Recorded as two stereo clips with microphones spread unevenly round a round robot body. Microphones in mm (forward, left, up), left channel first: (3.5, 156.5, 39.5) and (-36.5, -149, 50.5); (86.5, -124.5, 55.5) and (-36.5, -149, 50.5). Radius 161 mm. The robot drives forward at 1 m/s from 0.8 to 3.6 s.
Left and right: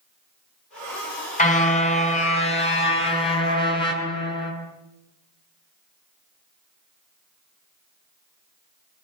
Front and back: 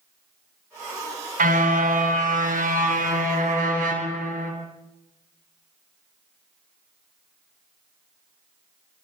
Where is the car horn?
150° left, 6 m; by 4.5 s 155° left, 8 m.